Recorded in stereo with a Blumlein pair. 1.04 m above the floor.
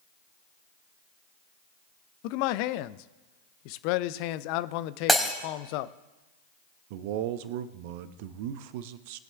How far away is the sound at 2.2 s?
About 0.5 m.